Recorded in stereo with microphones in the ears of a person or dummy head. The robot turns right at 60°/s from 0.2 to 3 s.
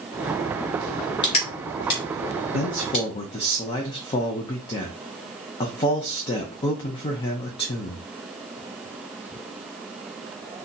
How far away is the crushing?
About 2.0 m.